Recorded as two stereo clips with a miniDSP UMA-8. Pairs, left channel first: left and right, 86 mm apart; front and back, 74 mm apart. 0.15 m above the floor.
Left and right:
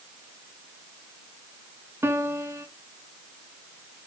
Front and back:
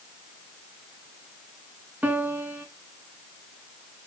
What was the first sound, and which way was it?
A piano, 125° right.